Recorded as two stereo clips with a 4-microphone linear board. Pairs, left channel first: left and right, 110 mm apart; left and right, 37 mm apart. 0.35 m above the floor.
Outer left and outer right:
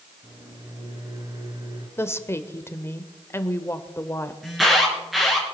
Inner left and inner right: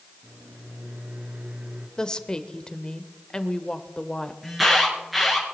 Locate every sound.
0.2 s a microwave: 40° right (ahead or behind), 3.5 m
2.0 s a woman speaking: 25° left (ahead or behind), 0.9 m
4.4 s an alarm: centre (ahead or behind), 4 m